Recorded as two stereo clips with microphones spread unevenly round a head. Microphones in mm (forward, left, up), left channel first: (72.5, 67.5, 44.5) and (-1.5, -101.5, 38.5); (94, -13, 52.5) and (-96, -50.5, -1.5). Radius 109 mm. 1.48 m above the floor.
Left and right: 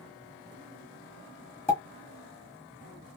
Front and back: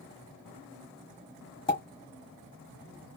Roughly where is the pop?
Ahead.